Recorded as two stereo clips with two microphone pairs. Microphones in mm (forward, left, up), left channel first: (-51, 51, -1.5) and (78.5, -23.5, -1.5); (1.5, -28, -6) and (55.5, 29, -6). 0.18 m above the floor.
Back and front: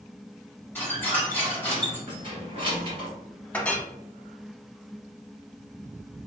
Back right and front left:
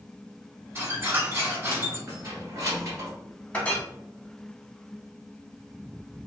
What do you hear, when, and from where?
0.8 s a squeak: 80° left, 1.1 m
2.1 s keys jangling: 15° left, 1.3 m
3.5 s a clink: 155° right, 0.6 m